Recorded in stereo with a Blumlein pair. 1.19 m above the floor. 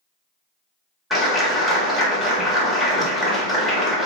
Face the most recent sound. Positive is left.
turn(degrees=5)